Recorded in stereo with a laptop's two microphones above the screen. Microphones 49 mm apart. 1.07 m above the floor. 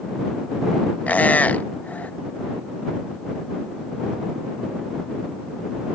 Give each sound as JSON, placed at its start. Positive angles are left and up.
{"t": 1.1, "sound": "a squeak", "side_deg": 35}